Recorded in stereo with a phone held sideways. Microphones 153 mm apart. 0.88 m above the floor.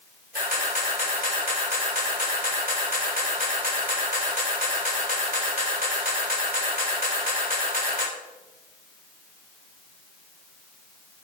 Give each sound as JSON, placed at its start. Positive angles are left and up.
{"t": 0.3, "sound": "a camera shutter", "side_deg": -85, "distance_m": 1.7}